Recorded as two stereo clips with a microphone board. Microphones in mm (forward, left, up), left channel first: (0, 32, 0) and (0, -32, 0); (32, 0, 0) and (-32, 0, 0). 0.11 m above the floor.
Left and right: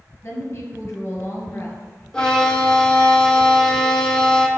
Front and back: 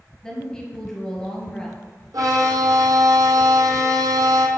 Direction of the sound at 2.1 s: 170° left.